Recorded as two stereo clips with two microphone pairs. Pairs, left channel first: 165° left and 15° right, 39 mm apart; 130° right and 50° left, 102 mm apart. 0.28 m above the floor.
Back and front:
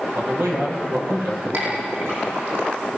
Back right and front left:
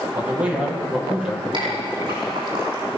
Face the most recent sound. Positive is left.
turn(degrees=5)